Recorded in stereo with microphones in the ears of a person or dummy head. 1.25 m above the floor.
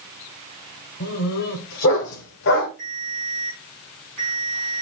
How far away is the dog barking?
About 2.5 m.